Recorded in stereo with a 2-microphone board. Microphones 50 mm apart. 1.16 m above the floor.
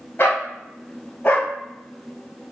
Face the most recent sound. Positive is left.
turn(degrees=30)  # may be behind; listen again after turning